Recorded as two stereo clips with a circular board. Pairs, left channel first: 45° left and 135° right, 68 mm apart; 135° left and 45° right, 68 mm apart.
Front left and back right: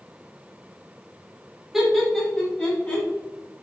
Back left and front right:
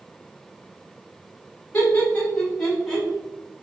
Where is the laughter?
145° left, 1.1 m; by 3.1 s 35° left, 1.2 m.